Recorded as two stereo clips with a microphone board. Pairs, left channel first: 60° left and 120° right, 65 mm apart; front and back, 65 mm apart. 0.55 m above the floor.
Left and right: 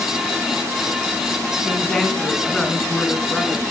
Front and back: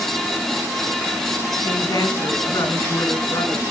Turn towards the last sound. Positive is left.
turn(degrees=-20)